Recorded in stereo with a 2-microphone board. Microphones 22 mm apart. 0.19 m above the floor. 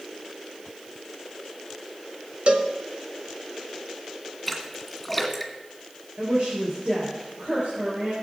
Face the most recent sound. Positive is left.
turn(degrees=-70)  # may be behind; listen again after turning